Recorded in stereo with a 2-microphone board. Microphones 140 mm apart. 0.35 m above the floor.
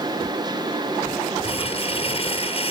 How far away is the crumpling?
About 1.6 m.